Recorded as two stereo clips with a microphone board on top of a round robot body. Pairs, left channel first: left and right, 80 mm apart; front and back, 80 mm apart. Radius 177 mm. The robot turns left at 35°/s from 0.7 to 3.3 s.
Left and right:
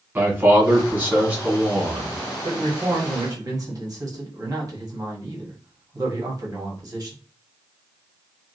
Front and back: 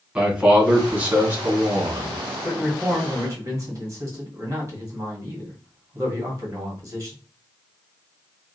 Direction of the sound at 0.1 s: 115° right.